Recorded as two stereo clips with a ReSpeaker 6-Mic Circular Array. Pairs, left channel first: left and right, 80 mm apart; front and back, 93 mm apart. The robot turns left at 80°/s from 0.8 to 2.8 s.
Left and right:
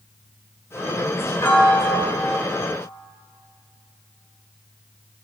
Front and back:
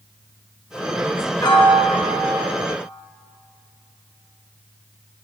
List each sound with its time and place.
1.4 s a piano: 35° left, 1.2 m; by 2.4 s 45° right, 1.2 m